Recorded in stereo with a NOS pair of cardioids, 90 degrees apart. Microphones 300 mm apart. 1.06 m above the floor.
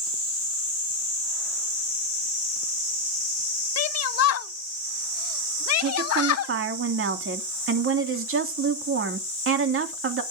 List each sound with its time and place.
3.8 s a shout: 55° left, 1.1 m
5.8 s a woman speaking: 45° right, 2.5 m